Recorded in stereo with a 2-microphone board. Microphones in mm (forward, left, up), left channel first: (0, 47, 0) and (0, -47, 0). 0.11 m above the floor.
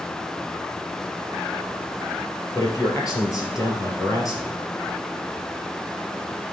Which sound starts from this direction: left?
A man speaking, at 2.5 s.